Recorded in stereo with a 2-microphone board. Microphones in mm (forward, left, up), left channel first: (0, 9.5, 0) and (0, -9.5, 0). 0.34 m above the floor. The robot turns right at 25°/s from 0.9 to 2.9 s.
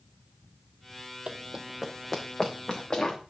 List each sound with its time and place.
1.3 s running footsteps: 60° right (ahead or behind), 0.5 m; by 3.2 s 35° left (ahead or behind), 3 m